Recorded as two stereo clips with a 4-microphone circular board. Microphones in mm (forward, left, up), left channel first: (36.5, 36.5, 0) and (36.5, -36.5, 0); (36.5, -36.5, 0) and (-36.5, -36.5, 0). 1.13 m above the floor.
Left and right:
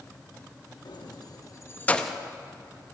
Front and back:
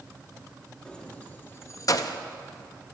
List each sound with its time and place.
0.8 s keys jangling: 75° left, 1.1 m; by 2.2 s 5° right, 0.6 m